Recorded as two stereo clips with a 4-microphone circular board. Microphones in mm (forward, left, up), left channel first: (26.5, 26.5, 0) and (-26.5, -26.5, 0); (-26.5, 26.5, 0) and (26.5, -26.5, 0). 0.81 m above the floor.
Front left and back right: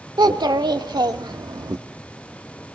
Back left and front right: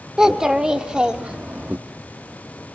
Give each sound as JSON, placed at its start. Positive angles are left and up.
{"t": 0.2, "sound": "a child speaking", "azimuth_deg": -125, "distance_m": 1.8}